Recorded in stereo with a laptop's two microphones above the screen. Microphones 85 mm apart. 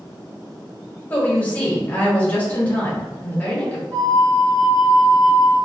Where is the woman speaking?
20° left (ahead or behind), 1.0 m.